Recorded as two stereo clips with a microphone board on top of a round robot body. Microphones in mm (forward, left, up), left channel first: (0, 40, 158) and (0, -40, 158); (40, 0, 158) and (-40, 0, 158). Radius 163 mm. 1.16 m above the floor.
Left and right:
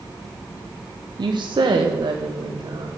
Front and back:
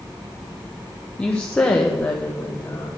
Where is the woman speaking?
75° right, 1.2 m; by 2.9 s 60° right, 2.5 m.